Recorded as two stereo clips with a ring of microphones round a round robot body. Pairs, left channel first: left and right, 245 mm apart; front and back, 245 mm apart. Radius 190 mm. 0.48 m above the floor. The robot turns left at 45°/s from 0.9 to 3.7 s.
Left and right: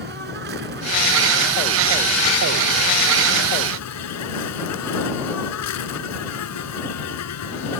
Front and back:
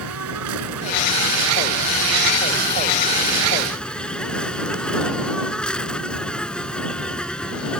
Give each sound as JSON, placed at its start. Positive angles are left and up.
{"t": 0.0, "sound": "an insect", "azimuth_deg": -150}